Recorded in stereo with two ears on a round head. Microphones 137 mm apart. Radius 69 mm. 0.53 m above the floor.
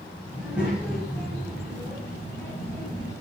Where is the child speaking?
10° right (ahead or behind), 3 m; by 3.1 s 25° left (ahead or behind), 3 m.